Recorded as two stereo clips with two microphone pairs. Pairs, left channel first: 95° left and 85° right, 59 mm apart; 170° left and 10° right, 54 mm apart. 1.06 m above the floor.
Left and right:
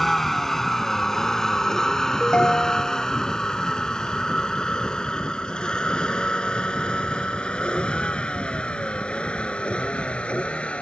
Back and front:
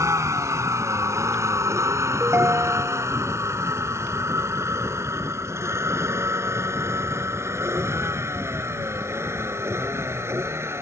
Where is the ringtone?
25° left.